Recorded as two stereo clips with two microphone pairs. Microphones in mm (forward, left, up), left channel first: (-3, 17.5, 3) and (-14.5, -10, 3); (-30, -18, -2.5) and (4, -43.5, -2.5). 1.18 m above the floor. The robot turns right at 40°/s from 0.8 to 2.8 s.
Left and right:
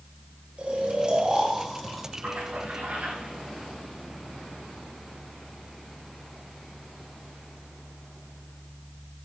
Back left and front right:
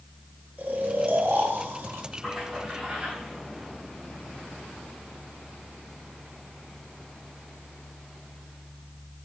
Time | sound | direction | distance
0.6 | snoring | 70° right | 1.9 m
2.2 | a splash | 125° right | 6 m